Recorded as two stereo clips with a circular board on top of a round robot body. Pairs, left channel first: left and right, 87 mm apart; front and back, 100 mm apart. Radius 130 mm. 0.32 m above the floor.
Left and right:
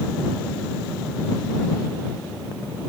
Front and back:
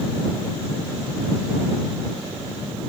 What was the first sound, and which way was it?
Only background noise.